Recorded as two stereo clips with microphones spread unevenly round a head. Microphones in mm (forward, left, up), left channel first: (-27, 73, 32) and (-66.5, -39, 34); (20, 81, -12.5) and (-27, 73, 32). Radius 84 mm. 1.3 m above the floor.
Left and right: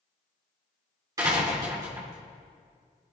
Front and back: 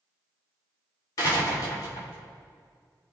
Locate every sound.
1.2 s a door slam: 40° right, 3 m